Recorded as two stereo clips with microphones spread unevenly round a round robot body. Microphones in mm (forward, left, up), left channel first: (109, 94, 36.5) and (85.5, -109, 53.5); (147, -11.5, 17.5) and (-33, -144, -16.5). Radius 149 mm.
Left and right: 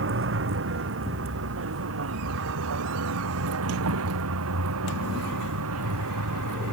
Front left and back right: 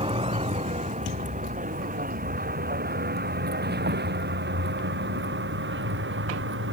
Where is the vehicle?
80° right; by 6.7 s 110° right.